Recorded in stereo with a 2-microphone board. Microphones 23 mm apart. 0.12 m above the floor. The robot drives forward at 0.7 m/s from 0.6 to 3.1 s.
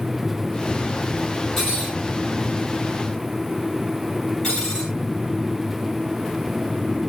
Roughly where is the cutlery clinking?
Left.